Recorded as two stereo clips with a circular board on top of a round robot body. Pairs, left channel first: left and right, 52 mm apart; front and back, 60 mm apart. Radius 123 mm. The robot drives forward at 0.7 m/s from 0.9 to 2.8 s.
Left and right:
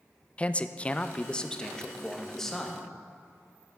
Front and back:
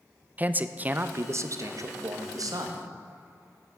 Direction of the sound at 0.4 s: 140° left.